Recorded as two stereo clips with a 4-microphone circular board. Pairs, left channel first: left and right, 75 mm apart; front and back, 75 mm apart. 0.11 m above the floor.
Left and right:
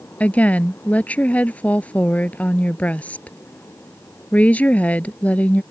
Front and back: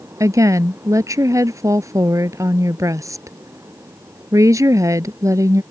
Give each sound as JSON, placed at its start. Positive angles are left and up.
{"t": 0.2, "sound": "a woman speaking", "azimuth_deg": 155}